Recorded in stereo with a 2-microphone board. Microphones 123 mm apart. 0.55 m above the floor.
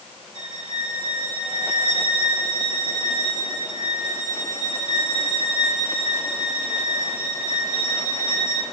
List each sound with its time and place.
0.3 s a violin: 45° right (ahead or behind), 3 m